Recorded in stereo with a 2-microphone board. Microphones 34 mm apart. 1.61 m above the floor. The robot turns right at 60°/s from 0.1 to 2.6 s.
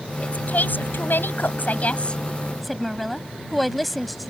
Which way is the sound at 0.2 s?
35° left.